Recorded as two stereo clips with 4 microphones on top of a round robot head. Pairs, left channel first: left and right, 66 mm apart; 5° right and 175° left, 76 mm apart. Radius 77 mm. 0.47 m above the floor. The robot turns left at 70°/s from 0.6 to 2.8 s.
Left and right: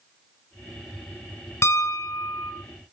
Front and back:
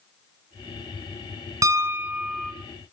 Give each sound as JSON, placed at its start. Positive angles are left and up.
{"t": 1.6, "sound": "a piano", "azimuth_deg": 135, "distance_m": 2.0}